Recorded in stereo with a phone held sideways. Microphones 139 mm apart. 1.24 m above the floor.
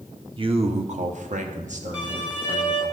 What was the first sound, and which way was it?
A man speaking, 40° right (ahead or behind).